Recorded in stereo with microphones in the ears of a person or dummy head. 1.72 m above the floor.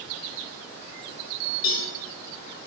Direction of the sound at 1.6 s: 50° left (ahead or behind).